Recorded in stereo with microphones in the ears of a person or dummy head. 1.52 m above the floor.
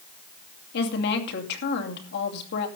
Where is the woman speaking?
60° left (ahead or behind), 2.5 m.